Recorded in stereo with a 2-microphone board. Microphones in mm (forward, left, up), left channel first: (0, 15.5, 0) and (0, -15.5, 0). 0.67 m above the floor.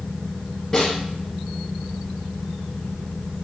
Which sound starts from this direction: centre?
A snare drum, at 0.7 s.